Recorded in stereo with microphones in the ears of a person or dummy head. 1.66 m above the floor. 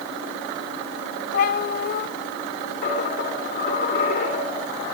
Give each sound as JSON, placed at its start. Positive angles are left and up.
{"t": 1.3, "sound": "a cat meowing", "side_deg": 55, "distance_m": 2.0}
{"t": 2.8, "sound": "a dropped coin", "side_deg": 45, "distance_m": 5.0}